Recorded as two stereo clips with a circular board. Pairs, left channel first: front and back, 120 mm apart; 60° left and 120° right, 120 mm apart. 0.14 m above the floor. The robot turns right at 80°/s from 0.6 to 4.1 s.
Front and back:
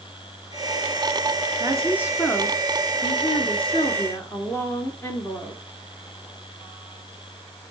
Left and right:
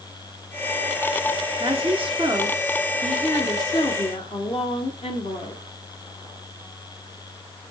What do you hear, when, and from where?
1.6 s a woman speaking: 140° right, 2 m; by 5.6 s 60° left, 2 m